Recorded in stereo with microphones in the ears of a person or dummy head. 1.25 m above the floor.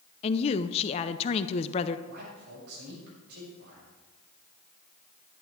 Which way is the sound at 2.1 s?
55° right (ahead or behind).